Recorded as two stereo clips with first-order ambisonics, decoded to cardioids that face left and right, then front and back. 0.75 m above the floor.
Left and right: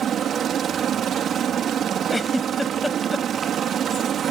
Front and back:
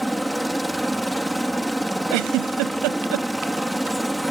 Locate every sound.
0.0 s a helicopter: 95° right
2.1 s a giggle: 175° left